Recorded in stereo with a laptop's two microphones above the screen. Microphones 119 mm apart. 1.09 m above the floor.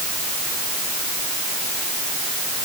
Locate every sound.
Only background noise.